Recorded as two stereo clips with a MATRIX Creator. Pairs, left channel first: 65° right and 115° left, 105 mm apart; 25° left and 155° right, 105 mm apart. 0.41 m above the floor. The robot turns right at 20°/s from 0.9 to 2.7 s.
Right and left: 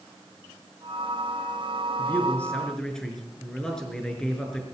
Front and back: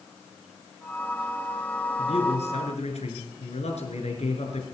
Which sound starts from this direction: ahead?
A man speaking, at 2.0 s.